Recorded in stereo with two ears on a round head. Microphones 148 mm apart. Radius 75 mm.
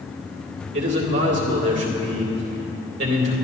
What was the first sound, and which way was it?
A man speaking, 80° right.